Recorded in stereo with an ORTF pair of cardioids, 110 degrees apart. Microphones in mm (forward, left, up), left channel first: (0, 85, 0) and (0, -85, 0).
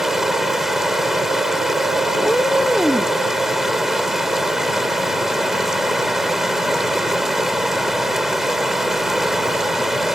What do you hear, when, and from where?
0.0 s running water: 5° right
2.1 s a cat meowing: straight ahead